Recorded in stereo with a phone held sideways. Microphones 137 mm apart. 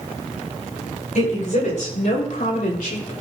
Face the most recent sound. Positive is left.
turn(degrees=80)